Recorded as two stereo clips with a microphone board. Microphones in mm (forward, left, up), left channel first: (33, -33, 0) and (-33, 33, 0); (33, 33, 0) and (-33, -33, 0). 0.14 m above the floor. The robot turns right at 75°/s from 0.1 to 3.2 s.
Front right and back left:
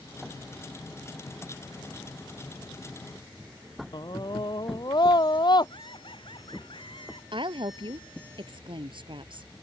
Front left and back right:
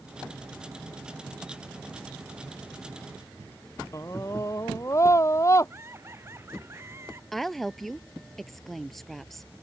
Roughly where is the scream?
Ahead.